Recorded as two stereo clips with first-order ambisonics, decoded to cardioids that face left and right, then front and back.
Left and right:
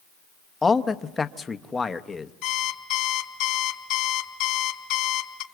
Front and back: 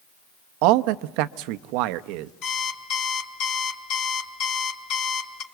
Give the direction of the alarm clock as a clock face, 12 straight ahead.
10 o'clock.